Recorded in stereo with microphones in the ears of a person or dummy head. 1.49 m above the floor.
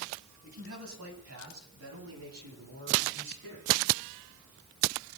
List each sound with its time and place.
0.4 s a man speaking: 75° right (ahead or behind), 8.5 m; by 3.8 s 70° right (ahead or behind), 13.5 m